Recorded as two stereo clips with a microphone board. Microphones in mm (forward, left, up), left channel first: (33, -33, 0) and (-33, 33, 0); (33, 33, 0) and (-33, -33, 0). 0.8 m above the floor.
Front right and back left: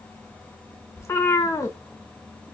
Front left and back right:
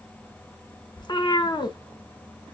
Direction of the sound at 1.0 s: 10° left.